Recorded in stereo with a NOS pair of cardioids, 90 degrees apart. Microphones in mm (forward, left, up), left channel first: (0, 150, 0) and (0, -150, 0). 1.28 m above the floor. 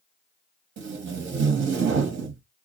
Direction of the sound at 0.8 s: 40° right.